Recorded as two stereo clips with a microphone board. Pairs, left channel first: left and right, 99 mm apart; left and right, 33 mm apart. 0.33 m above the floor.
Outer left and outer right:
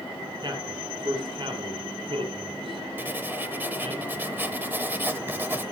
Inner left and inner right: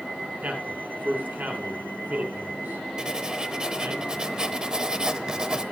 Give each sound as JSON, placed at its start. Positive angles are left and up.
{"t": 0.4, "sound": "a man speaking", "side_deg": -50, "distance_m": 4.5}
{"t": 3.0, "sound": "writing", "side_deg": -20, "distance_m": 0.9}